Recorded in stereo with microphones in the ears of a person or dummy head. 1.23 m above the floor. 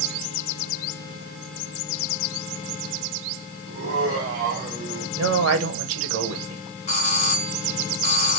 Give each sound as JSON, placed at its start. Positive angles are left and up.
{"t": 3.7, "sound": "laughter", "side_deg": -35, "distance_m": 1.9}
{"t": 5.2, "sound": "a man speaking", "side_deg": -65, "distance_m": 1.3}
{"t": 6.9, "sound": "a doorbell", "side_deg": 45, "distance_m": 1.2}